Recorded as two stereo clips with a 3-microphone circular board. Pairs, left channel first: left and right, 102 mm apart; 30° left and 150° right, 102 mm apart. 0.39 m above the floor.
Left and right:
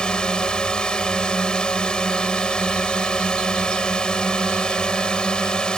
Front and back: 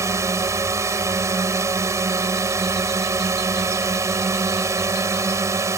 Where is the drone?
170° left.